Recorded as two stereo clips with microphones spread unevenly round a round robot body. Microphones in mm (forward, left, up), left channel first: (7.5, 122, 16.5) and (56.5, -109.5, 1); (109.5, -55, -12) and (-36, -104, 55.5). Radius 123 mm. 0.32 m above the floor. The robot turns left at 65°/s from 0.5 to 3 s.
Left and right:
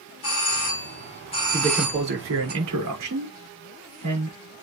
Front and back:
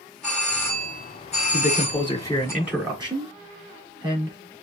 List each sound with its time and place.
0.2 s a doorbell: 90° left, 4 m; by 2.5 s 45° right, 4 m
1.5 s a man speaking: straight ahead, 5.5 m; by 4.4 s 95° right, 5.5 m